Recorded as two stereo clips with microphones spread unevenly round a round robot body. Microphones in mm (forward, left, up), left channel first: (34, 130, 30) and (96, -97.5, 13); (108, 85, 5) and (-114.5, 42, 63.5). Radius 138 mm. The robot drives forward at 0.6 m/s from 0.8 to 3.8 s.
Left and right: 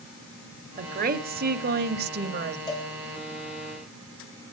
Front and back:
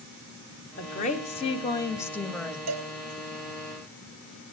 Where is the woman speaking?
30° right, 1.8 m; by 2.6 s 70° right, 1.2 m.